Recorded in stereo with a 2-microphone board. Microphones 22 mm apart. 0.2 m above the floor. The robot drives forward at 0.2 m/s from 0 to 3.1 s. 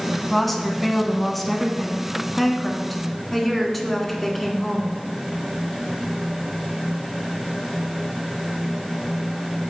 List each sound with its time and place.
0.3 s a woman speaking: 5° left (ahead or behind), 1.3 m